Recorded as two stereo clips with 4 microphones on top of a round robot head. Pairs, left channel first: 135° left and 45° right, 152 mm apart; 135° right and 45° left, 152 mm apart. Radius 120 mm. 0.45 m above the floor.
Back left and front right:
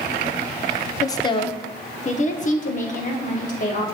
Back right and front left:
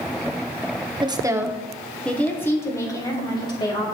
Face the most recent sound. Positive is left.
turn(degrees=165)